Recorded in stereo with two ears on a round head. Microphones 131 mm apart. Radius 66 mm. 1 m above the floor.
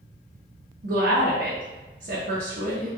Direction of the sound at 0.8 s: 75° right (ahead or behind).